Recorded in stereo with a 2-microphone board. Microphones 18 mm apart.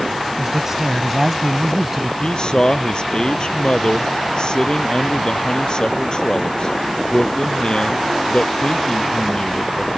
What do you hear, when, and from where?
0.4 s a man speaking: 25° right (ahead or behind); by 2.1 s 20° right (ahead or behind)
2.2 s a man speaking: 45° left (ahead or behind)